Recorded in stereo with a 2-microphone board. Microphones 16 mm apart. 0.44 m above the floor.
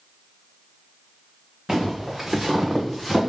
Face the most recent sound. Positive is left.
turn(degrees=5)  # may be behind; listen again after turning